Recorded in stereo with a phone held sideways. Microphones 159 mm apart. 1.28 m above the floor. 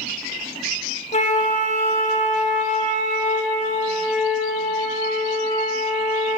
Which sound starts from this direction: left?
A flute, at 1.1 s.